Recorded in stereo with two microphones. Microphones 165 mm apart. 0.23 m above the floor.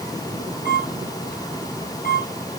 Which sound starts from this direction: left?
A camera shutter, at 0.7 s.